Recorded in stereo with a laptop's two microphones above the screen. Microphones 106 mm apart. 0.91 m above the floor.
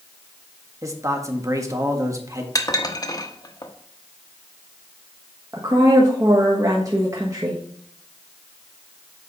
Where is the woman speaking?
30° right (ahead or behind), 1.3 m.